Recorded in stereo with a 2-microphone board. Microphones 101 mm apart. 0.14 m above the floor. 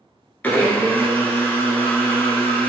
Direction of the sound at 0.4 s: 20° left (ahead or behind).